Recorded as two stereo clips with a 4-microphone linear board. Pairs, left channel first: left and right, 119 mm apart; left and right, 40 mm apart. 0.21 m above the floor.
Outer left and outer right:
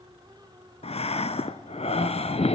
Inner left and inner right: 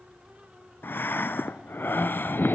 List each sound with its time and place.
0.8 s breathing: 70° left (ahead or behind), 0.8 m